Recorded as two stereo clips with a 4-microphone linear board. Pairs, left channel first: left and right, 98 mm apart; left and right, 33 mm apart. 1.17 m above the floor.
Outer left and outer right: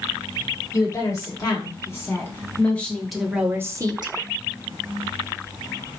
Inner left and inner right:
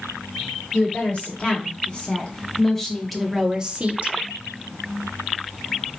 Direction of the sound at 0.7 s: 35° left (ahead or behind).